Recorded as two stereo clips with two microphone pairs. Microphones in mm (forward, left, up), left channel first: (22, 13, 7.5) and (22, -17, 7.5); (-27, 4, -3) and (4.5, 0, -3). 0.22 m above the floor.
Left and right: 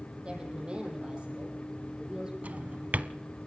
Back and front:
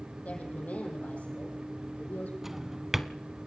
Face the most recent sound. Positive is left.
turn(degrees=-85)